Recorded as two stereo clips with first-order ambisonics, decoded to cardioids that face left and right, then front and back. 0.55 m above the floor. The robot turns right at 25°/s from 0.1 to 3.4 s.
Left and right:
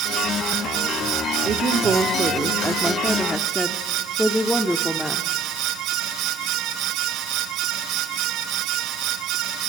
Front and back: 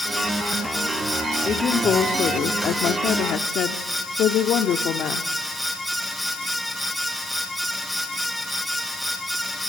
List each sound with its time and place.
1.4 s a woman speaking: 50° right, 0.9 m; by 5.3 s straight ahead, 0.9 m